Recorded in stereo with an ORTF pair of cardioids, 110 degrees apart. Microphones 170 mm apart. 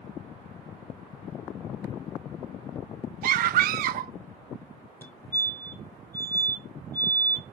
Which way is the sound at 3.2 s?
60° right.